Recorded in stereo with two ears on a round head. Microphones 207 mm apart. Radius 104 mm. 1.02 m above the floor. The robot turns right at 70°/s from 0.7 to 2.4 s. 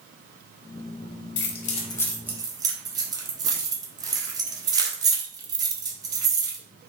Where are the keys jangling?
55° left (ahead or behind), 0.6 m; by 6.6 s 15° right (ahead or behind), 0.6 m.